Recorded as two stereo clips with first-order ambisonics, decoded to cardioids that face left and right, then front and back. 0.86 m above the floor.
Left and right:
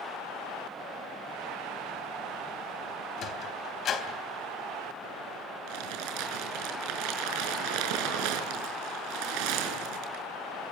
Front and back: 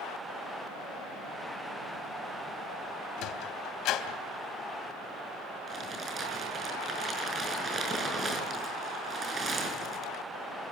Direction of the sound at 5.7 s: 110° right.